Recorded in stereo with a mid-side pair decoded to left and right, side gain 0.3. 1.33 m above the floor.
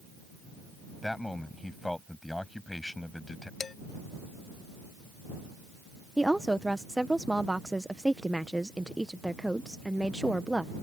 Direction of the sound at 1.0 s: 15° left.